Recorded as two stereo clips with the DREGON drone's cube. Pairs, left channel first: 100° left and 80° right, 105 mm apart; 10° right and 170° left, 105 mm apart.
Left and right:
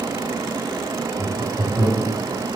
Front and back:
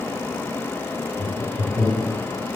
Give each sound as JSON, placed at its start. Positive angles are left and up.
{"t": 1.2, "sound": "laughter", "azimuth_deg": -175, "distance_m": 1.6}